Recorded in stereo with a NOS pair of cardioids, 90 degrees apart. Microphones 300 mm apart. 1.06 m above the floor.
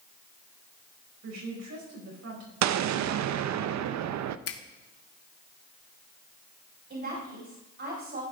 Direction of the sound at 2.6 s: 65° right.